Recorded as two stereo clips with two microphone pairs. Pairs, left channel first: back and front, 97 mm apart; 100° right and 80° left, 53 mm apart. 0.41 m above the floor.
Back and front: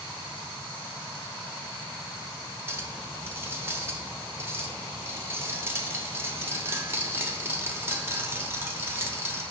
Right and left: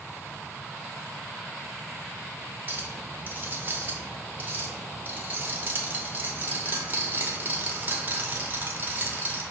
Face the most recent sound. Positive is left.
turn(degrees=55)